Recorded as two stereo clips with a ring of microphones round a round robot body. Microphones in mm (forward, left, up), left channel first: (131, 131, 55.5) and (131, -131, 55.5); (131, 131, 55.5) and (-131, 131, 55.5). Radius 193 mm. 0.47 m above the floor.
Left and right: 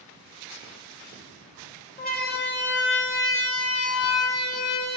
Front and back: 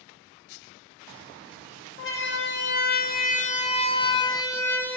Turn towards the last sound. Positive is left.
turn(degrees=85)